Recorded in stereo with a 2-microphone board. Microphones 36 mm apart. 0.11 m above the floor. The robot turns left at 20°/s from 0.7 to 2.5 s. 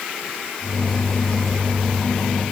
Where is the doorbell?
I don't hear a doorbell.